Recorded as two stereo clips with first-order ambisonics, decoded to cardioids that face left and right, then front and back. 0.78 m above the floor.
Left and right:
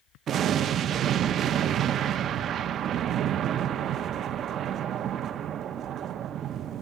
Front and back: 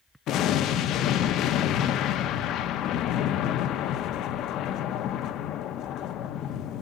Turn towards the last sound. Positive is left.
turn(degrees=-35)